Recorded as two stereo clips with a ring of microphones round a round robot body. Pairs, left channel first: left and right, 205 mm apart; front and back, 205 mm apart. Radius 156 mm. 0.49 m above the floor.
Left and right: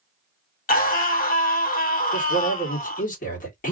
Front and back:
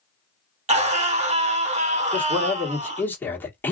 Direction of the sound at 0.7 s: 130° left.